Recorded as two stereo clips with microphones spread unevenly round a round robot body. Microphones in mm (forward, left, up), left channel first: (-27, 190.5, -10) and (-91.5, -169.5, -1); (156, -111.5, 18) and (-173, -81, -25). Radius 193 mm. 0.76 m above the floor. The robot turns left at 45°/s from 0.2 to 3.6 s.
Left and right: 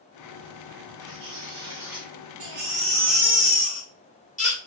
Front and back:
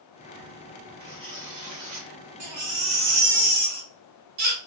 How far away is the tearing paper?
About 2 m.